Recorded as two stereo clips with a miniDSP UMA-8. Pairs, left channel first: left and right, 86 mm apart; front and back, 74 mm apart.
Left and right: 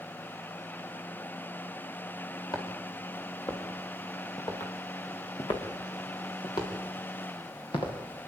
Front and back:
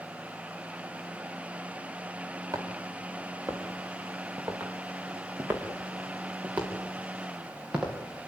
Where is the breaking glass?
No breaking glass in this recording.